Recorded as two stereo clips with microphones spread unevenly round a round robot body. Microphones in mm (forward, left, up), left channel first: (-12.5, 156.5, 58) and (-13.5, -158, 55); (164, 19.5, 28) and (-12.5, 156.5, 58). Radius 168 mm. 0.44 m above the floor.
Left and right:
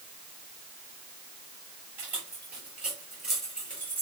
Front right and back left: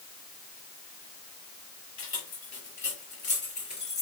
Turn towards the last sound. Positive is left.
turn(degrees=5)